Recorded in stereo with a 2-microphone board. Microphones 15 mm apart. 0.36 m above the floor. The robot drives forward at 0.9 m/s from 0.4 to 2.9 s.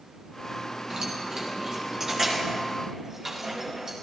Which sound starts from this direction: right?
Keys jangling, at 0.9 s.